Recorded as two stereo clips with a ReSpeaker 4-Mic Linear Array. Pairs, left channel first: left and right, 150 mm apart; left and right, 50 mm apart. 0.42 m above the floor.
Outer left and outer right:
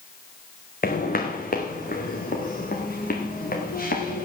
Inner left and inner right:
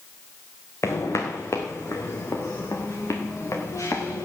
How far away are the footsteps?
About 2.5 m.